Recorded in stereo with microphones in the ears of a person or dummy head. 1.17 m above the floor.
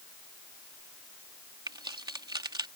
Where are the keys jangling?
20° right (ahead or behind).